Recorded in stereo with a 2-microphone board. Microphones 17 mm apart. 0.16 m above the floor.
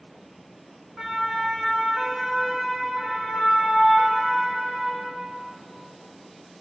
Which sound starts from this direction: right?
A siren, at 1.0 s.